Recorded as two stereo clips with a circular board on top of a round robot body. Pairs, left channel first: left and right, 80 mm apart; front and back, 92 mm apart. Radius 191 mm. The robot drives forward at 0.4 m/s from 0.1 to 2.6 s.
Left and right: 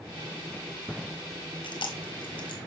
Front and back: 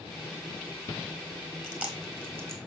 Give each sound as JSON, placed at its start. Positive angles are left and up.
{"t": 1.6, "sound": "chewing", "azimuth_deg": 100, "distance_m": 1.8}